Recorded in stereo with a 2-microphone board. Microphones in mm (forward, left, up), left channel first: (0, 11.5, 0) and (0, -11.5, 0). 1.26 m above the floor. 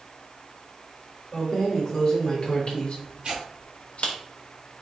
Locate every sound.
1.3 s keys jangling: 15° left (ahead or behind), 1.4 m; by 4.2 s 70° left (ahead or behind), 1.1 m
3.2 s tearing paper: 55° right (ahead or behind), 1.8 m